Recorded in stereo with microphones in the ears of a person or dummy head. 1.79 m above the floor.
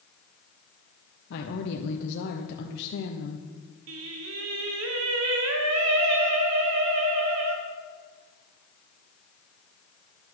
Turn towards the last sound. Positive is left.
turn(degrees=-75)  # may be behind; listen again after turning